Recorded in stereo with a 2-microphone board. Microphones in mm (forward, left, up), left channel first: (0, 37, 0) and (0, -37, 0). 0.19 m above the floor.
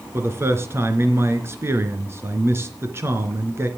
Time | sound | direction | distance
0.1 | a man speaking | 35° right (ahead or behind) | 3 m